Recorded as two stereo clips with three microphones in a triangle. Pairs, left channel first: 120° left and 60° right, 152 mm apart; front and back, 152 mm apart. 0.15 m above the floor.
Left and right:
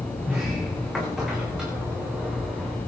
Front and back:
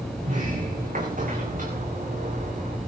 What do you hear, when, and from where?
0.2 s a sliding door: 145° right, 5 m